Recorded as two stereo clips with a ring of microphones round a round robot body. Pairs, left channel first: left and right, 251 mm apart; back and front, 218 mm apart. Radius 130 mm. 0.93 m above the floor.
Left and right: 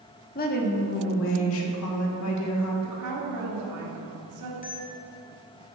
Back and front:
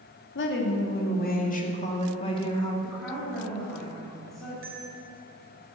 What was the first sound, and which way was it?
A woman speaking, 145° left.